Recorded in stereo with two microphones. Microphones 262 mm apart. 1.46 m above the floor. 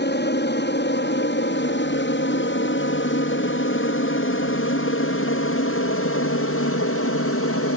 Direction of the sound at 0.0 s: 40° left (ahead or behind).